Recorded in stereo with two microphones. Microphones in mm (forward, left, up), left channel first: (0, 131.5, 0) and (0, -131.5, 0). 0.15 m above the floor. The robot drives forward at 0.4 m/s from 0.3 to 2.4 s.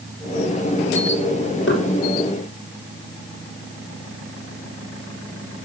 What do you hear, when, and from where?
1.7 s knocking: 45° left (ahead or behind), 3 m